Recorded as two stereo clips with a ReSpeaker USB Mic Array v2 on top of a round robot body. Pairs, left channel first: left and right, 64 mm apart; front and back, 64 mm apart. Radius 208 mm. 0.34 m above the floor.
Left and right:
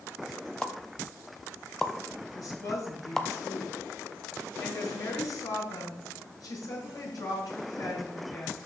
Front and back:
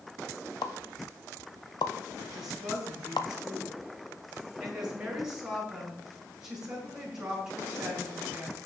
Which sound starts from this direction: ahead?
A pop, at 0.6 s.